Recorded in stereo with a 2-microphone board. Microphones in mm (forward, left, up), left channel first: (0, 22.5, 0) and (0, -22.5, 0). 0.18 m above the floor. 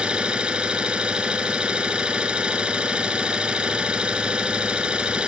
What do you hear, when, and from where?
0.0 s an engine running: 20° right (ahead or behind), 1.6 m